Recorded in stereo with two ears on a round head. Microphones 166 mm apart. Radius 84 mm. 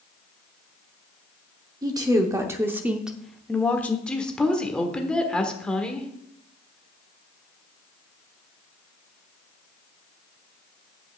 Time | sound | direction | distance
1.8 | a woman speaking | 20° right (ahead or behind) | 1.0 m
4.1 | a woman speaking | 5° left (ahead or behind) | 1.3 m